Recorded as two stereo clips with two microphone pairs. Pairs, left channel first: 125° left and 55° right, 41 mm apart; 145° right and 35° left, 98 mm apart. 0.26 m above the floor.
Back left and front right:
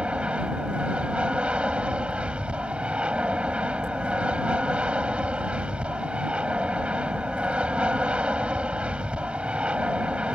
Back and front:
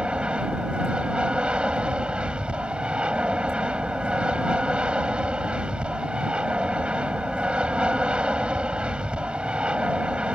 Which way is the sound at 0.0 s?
35° right.